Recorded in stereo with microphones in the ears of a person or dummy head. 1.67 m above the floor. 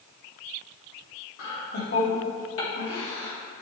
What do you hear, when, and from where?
1.4 s laughter: 85° left, 3 m